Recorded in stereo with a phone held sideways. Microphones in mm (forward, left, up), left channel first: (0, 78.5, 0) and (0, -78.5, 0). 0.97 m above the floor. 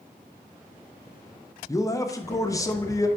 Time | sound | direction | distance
1.7 | a man speaking | 20° left (ahead or behind) | 0.6 m